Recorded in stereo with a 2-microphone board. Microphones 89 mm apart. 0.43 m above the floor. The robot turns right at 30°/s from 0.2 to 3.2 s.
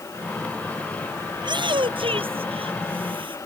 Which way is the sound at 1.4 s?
125° right.